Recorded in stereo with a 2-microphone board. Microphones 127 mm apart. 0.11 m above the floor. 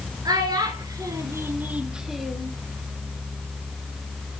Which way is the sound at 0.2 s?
30° right (ahead or behind).